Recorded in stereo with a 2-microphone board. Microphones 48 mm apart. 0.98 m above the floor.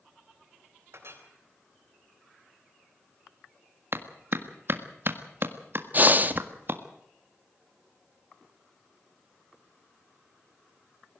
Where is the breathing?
35° right (ahead or behind), 1.0 m.